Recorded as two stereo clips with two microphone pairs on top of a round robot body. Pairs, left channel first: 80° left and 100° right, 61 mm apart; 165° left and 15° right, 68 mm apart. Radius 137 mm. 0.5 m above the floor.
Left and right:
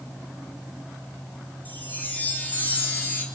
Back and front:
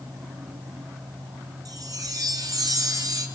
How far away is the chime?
About 3 m.